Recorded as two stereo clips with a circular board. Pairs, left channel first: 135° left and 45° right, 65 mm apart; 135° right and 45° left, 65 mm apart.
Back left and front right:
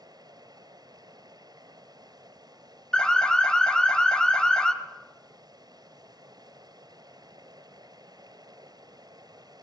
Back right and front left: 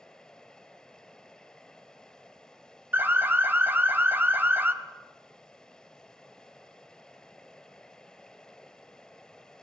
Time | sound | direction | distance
0.0 | running water | 55° right | 2.0 m
2.9 | an alarm | 65° left | 1.6 m